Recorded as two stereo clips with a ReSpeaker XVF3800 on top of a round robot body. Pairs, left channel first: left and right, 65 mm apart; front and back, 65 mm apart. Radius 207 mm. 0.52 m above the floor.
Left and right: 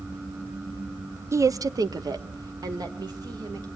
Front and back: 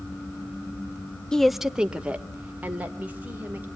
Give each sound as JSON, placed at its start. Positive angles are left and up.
{"t": 1.3, "sound": "a woman speaking", "azimuth_deg": -75, "distance_m": 0.7}